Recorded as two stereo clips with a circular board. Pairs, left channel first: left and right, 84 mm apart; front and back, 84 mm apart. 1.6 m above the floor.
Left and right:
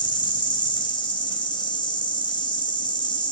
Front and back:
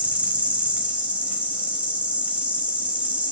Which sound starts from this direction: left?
An insect, at 0.0 s.